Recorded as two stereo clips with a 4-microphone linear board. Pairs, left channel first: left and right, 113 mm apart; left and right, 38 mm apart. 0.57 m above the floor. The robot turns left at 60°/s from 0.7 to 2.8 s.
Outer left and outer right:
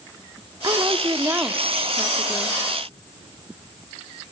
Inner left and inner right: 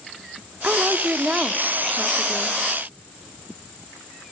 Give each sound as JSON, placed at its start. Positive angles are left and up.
{"t": 0.6, "sound": "a woman speaking", "azimuth_deg": -105, "distance_m": 1.2}